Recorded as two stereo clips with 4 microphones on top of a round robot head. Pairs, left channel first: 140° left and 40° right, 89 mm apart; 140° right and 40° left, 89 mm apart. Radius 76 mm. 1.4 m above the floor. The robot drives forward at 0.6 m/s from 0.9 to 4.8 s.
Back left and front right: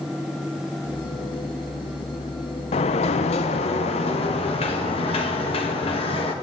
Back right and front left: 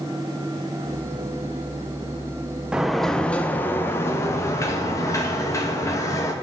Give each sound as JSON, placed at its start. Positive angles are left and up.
{"t": 2.7, "sound": "a sliding door", "azimuth_deg": 125, "distance_m": 0.6}